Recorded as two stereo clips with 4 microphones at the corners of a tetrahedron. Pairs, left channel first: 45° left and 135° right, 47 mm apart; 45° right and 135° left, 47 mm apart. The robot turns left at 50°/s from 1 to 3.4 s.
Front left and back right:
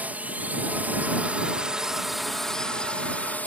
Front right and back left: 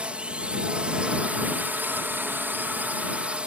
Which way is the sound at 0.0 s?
170° right.